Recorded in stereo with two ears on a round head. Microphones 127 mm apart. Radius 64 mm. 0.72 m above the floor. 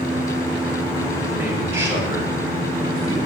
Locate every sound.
1.3 s a man speaking: 20° right (ahead or behind), 3 m; by 3.2 s 40° right (ahead or behind), 4 m